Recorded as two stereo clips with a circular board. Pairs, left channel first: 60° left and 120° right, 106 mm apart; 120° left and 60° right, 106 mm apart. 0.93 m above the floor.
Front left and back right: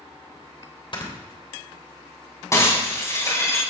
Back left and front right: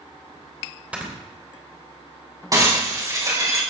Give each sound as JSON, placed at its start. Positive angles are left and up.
{"t": 0.9, "sound": "snoring", "azimuth_deg": 20, "distance_m": 3.0}
{"t": 2.5, "sound": "breaking glass", "azimuth_deg": 0, "distance_m": 4.5}